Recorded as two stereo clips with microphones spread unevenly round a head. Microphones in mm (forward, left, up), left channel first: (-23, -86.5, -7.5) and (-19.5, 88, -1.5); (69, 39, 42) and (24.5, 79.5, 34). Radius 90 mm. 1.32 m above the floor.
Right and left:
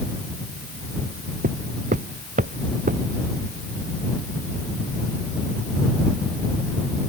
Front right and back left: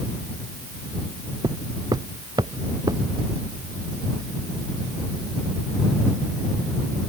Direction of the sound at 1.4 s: 130° left.